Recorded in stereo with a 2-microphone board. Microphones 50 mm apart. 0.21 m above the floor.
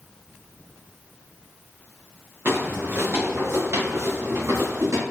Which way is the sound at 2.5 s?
45° right (ahead or behind).